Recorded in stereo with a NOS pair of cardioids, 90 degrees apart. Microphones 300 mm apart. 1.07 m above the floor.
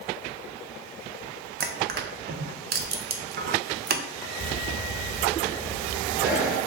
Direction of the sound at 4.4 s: 5° right.